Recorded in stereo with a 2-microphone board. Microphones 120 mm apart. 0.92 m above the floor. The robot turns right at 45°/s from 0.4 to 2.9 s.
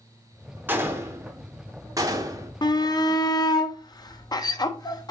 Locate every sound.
0.7 s a gunshot: 15° right (ahead or behind), 0.6 m; by 2.5 s 25° right (ahead or behind), 0.6 m
2.6 s a shout: 35° left (ahead or behind), 0.5 m